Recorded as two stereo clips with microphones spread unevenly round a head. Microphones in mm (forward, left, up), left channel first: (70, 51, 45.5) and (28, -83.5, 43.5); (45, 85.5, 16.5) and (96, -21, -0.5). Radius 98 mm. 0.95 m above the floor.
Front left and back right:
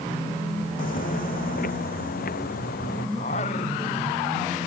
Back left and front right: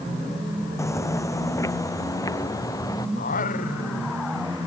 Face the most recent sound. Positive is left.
turn(degrees=125)